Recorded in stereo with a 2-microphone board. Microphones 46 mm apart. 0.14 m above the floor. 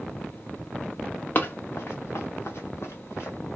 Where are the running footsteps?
45° left (ahead or behind), 0.6 m; by 3.4 s 65° left (ahead or behind), 1.6 m.